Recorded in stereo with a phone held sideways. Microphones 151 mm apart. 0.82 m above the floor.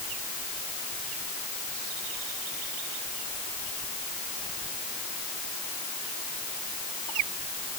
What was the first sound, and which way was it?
Only background noise.